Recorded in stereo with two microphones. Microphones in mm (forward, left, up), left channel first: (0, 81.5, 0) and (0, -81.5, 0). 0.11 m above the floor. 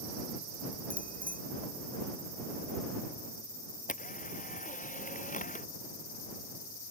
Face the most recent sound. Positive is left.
turn(degrees=50)  # may be behind; listen again after turning